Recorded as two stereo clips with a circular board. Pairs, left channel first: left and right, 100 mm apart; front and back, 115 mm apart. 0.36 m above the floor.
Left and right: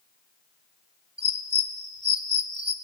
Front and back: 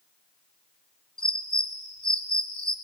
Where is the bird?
80° right, 0.6 m.